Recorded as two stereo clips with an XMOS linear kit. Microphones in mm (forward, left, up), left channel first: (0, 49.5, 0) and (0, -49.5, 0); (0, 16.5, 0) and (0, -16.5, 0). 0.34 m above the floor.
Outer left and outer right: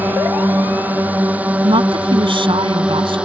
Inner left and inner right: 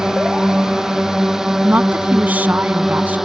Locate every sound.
0.0 s a drone: 15° right (ahead or behind); by 3.2 s 10° right (ahead or behind)
1.6 s a woman speaking: 60° right (ahead or behind)